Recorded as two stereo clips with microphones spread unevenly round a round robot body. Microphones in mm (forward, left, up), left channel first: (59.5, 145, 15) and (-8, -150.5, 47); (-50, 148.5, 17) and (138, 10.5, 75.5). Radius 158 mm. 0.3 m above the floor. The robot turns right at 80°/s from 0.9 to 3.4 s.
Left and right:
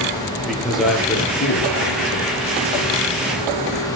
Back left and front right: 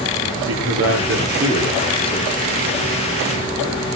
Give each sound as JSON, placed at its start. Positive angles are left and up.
{"t": 0.3, "sound": "a man speaking", "azimuth_deg": -15, "distance_m": 7.5}